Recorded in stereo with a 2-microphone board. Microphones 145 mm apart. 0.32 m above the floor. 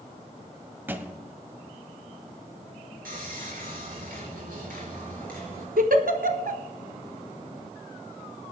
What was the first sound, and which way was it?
A thud, 15° right (ahead or behind).